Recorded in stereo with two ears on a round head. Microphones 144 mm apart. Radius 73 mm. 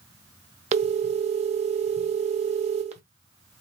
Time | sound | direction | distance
0.7 | a phone ringing | 40° right (ahead or behind) | 0.7 m